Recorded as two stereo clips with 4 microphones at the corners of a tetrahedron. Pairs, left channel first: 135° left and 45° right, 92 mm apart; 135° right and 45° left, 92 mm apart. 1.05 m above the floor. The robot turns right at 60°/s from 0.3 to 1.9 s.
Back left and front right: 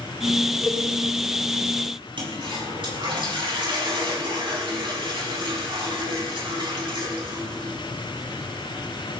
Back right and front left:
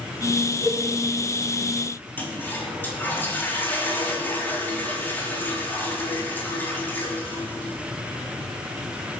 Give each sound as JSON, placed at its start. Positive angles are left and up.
{"t": 0.6, "sound": "a cowbell", "azimuth_deg": -135, "distance_m": 6.5}
{"t": 2.2, "sound": "a toilet flushing", "azimuth_deg": -70, "distance_m": 4.5}